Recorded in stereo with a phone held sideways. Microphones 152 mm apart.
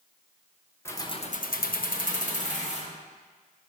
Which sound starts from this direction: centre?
Keys jangling, at 0.8 s.